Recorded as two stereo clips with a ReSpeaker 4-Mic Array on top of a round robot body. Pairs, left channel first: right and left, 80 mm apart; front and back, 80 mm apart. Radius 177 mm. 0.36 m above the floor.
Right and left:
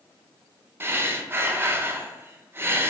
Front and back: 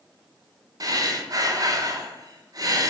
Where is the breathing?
145° left, 0.5 m.